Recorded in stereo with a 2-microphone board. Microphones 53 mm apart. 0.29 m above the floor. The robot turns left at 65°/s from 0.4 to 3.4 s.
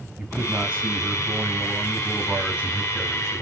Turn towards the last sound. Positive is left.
turn(degrees=145)